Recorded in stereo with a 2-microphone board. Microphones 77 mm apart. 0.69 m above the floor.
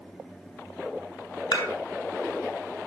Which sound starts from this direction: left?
Dishes clattering, at 1.5 s.